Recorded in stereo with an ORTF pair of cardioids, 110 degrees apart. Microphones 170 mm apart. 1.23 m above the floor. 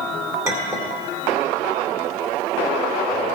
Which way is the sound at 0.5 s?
15° right.